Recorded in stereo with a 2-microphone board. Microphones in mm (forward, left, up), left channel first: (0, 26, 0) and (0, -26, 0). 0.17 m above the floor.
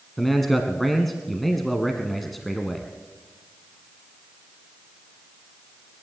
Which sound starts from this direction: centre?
A man speaking, at 0.2 s.